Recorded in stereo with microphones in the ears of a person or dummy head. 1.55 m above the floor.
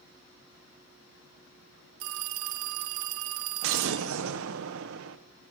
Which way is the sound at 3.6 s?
65° right (ahead or behind).